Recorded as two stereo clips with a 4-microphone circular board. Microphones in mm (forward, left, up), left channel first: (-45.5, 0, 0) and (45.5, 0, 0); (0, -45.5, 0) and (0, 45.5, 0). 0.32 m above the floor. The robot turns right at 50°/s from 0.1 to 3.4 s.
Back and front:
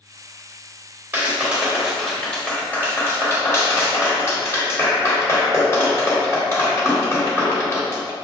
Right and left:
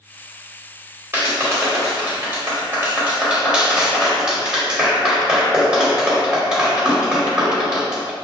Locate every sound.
1.1 s a clap: 50° left, 1.2 m; by 8.1 s 165° left, 1.2 m